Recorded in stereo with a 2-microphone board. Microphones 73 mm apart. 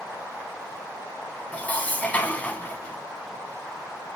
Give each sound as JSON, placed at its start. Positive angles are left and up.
{"t": 1.5, "sound": "dishes clattering", "side_deg": 20, "distance_m": 0.9}